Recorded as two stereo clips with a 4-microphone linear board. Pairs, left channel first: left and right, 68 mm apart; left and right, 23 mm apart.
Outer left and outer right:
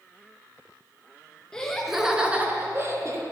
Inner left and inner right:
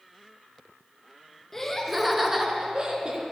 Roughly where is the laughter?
Centre.